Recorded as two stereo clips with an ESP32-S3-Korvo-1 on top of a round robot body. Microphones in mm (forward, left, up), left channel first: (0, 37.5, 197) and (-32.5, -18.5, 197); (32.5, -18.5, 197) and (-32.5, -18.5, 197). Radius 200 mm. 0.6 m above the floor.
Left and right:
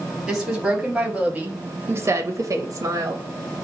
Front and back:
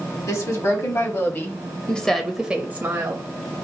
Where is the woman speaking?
35° right, 1.7 m; by 3.3 s 140° right, 1.0 m.